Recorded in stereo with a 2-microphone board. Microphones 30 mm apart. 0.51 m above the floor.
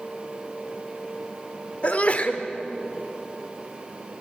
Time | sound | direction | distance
1.8 | a sneeze | 45° left (ahead or behind) | 1.7 m